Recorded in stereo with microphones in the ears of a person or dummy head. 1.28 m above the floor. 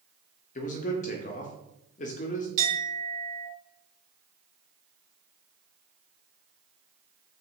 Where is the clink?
70° right (ahead or behind), 1.5 m.